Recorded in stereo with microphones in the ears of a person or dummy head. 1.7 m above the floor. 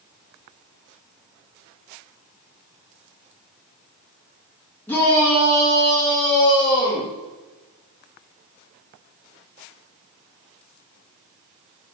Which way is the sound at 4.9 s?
10° left (ahead or behind).